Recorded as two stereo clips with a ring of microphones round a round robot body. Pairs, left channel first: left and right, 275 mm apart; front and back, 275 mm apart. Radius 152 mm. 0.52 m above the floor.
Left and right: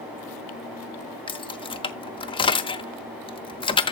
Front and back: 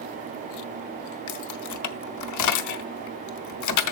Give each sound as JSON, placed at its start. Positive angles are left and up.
{"t": 1.3, "sound": "keys jangling", "azimuth_deg": 20, "distance_m": 0.9}